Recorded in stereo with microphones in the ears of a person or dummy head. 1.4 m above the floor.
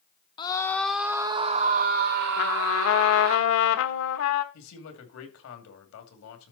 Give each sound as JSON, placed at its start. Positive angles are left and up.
{"t": 0.4, "sound": "a scream", "side_deg": 25, "distance_m": 0.7}
{"t": 2.4, "sound": "a trumpet", "side_deg": 70, "distance_m": 1.1}
{"t": 4.5, "sound": "a man speaking", "side_deg": 75, "distance_m": 2.5}